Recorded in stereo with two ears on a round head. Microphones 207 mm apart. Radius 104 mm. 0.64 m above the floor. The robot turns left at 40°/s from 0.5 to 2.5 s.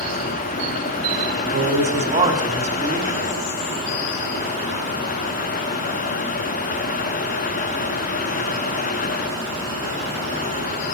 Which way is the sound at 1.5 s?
120° right.